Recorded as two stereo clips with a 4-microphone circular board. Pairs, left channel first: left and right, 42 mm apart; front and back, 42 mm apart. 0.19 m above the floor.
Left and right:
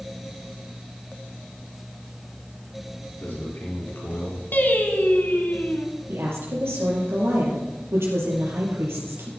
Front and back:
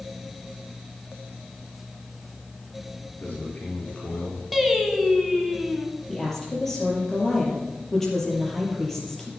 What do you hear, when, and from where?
3.2 s a man speaking: 50° left, 4.5 m; by 4.4 s 65° left, 3.5 m
4.5 s singing: 90° left, 1.5 m
6.1 s a woman speaking: 85° right, 4 m